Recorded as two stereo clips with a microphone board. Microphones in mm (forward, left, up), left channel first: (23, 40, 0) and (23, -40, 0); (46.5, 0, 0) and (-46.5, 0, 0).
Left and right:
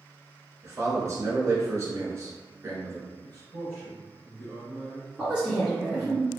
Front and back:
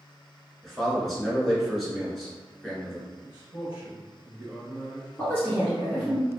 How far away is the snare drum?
I don't hear a snare drum.